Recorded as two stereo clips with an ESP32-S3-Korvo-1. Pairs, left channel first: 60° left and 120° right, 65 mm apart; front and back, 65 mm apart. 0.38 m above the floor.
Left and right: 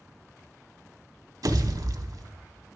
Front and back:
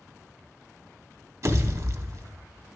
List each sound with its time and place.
1.4 s a pop: 140° right, 0.7 m